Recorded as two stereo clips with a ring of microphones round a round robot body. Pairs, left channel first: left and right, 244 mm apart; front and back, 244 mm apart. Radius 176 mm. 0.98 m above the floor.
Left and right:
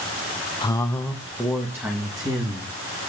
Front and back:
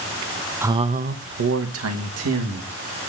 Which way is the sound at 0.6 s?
115° left.